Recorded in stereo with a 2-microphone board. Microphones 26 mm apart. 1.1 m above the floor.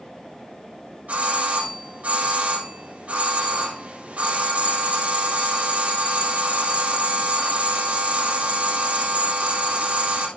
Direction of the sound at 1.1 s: 80° right.